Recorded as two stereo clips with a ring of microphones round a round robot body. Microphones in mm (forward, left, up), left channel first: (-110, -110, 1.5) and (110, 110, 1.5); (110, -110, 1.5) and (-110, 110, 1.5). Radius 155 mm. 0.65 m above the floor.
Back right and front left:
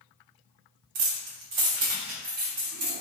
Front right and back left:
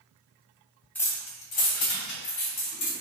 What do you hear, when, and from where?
0.9 s keys jangling: 40° left, 0.5 m; by 2.9 s 5° left, 1.4 m